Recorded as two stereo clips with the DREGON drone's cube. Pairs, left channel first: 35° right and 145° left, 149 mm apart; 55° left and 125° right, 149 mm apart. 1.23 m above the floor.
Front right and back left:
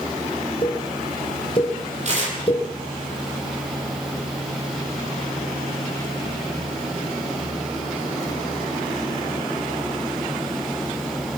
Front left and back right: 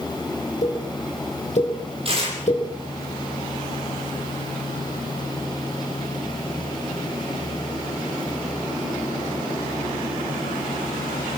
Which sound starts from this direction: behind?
Tearing paper, at 2.0 s.